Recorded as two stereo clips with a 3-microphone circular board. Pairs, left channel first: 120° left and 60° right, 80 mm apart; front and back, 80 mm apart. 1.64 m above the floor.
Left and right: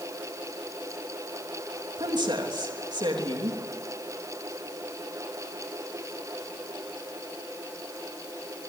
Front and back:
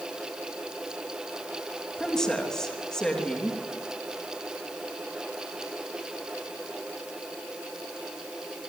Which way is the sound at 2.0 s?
85° right.